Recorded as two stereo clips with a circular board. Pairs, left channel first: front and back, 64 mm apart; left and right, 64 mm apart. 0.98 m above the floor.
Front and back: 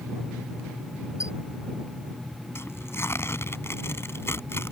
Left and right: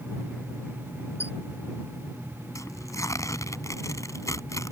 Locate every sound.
1.2 s a squeak: 40° left
2.5 s tearing paper: 50° left